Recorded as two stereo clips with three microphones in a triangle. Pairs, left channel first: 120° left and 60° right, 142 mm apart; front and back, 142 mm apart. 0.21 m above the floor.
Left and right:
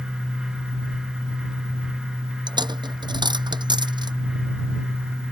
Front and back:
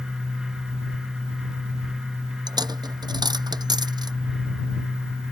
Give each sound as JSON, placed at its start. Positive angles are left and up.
{"t": 2.5, "sound": "a dropped coin", "azimuth_deg": -120}